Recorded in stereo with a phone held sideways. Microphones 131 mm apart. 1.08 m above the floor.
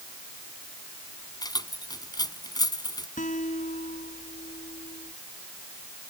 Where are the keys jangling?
30° left (ahead or behind).